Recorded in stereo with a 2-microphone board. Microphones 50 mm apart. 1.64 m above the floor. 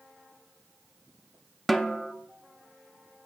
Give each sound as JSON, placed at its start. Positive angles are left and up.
{"t": 1.7, "sound": "a snare drum", "side_deg": 0, "distance_m": 0.5}